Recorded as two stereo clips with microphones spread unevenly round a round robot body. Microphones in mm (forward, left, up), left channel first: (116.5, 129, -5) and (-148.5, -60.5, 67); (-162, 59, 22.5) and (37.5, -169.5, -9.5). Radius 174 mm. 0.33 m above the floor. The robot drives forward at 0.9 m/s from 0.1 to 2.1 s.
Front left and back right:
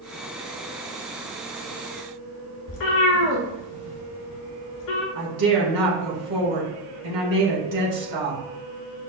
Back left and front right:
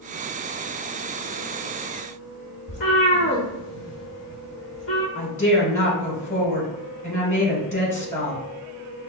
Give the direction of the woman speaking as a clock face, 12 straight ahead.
5 o'clock.